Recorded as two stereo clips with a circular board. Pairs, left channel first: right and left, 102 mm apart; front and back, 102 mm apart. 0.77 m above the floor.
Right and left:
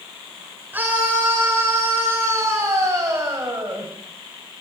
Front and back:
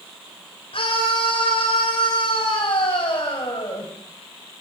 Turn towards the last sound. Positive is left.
turn(degrees=35)